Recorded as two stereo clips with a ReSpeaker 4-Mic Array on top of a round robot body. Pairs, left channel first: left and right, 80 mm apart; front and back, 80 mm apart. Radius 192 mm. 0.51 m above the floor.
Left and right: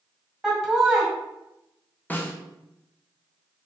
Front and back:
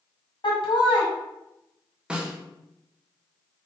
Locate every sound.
0.4 s laughter: 5° right, 2.0 m
2.1 s a snare drum: 115° left, 1.1 m